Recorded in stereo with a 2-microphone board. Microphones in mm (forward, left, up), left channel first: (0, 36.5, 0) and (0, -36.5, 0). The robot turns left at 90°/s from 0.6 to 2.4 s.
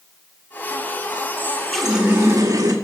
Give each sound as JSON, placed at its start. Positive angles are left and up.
{"t": 1.4, "sound": "a running tap", "azimuth_deg": 40, "distance_m": 1.7}